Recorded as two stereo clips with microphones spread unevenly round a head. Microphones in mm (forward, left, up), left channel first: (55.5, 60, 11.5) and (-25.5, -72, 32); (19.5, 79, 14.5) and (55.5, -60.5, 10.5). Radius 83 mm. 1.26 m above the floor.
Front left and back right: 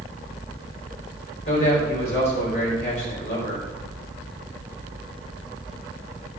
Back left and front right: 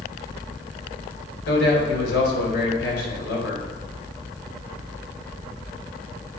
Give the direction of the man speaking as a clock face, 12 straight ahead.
8 o'clock.